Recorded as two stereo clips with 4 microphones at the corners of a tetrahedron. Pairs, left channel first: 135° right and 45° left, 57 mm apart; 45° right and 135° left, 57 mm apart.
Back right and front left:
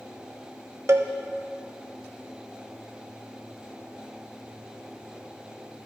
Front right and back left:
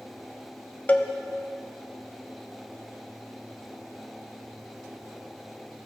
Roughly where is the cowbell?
Ahead.